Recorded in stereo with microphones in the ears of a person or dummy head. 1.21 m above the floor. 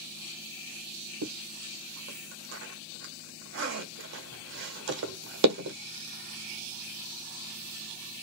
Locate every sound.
1.2 s a zipper: 70° right (ahead or behind), 1.1 m